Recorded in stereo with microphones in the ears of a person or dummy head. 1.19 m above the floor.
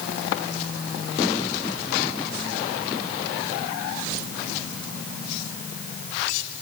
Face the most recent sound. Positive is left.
No sound to turn to.